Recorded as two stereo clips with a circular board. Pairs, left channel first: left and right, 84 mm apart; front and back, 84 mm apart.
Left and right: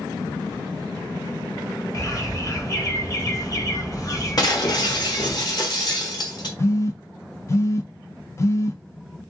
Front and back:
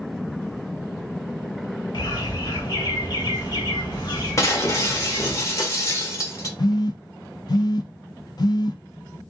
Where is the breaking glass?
55° left, 1.1 m.